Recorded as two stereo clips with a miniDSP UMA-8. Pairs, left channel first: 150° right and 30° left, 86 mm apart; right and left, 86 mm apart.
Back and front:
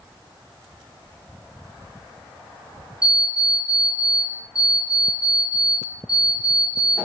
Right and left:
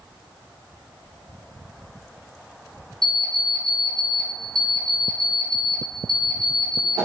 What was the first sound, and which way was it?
An alarm clock, 110° left.